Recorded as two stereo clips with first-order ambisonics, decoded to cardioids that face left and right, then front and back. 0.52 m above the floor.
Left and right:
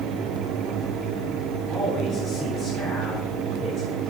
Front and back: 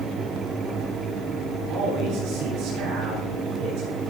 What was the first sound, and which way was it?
A man speaking, 170° right.